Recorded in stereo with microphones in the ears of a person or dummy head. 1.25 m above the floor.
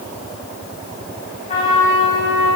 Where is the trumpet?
35° left (ahead or behind), 4.5 m.